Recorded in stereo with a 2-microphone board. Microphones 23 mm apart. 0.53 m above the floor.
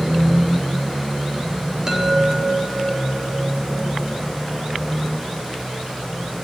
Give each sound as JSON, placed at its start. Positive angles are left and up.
{"t": 1.9, "sound": "a chime", "side_deg": -20, "distance_m": 4.0}